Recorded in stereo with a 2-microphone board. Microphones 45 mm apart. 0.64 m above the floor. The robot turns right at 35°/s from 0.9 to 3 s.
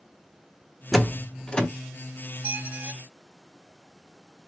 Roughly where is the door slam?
Centre.